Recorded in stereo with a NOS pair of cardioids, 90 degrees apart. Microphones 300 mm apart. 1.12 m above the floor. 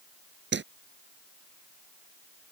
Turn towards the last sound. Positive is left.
turn(degrees=-35)